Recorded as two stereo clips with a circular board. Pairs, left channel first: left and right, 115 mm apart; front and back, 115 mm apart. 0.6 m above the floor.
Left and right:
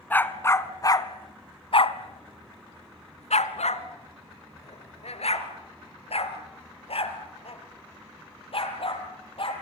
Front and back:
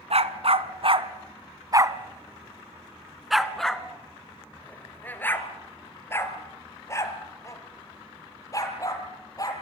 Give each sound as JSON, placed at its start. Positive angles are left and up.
{"t": 0.1, "sound": "a dog barking", "azimuth_deg": 165, "distance_m": 1.6}